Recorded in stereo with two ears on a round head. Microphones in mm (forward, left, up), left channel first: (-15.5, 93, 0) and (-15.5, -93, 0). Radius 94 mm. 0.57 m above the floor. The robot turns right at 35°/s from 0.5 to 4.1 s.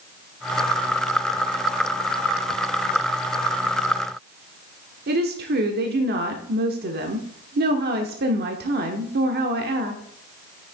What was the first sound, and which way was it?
A woman speaking, 50° right (ahead or behind).